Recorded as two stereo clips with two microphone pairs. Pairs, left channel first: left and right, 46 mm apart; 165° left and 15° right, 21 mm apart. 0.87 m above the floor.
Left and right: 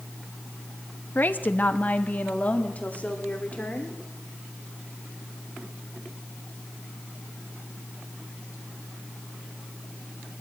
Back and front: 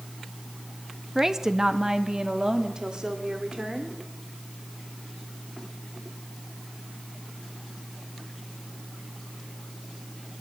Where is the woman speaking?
50° left, 0.8 m; by 4.0 s 30° left, 2.5 m.